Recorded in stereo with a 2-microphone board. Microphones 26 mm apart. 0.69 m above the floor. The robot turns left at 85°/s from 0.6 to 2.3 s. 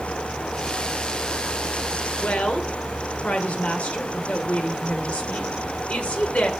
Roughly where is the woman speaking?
Left.